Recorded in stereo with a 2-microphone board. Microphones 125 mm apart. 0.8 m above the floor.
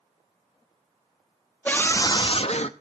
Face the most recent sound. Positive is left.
turn(degrees=60)  # may be behind; listen again after turning